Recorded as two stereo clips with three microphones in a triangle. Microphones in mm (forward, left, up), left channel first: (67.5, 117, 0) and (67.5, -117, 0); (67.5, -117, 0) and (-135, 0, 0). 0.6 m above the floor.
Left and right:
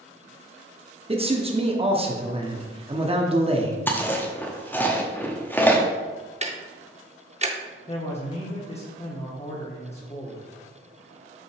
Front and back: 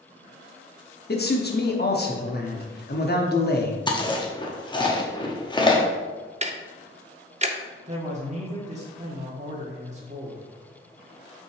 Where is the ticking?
150° right, 0.6 m.